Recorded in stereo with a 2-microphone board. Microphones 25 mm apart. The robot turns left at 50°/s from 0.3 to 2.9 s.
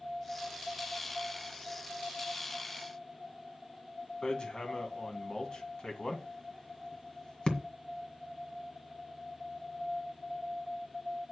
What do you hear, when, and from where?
4.2 s hammering: 35° left (ahead or behind), 1.9 m